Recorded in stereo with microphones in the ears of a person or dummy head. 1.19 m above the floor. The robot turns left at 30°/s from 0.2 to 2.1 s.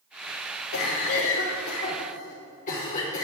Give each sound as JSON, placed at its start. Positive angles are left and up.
{"t": 0.7, "sound": "a cough", "azimuth_deg": 85, "distance_m": 1.3}